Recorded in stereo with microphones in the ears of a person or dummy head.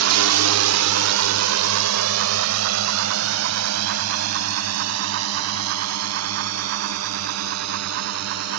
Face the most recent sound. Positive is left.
turn(degrees=-85)